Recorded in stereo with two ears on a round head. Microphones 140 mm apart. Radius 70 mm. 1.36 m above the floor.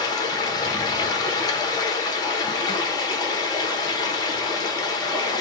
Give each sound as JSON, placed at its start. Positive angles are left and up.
{"t": 0.0, "sound": "running water", "side_deg": 25, "distance_m": 0.8}